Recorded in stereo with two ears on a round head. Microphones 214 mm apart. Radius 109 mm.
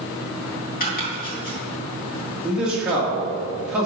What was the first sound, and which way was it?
Chopping, 35° left (ahead or behind).